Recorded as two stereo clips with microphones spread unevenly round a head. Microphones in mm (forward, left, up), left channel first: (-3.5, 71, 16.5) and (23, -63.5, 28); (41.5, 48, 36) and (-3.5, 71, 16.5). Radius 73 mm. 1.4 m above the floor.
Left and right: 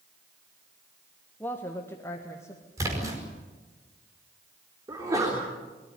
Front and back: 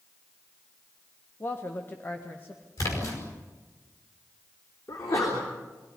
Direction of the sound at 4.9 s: 10° right.